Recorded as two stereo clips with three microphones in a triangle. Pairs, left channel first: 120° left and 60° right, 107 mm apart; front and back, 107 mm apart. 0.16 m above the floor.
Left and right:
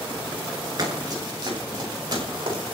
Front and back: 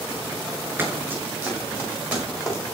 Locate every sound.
0.8 s running footsteps: 110° right, 7.5 m; by 2.6 s 100° right, 9 m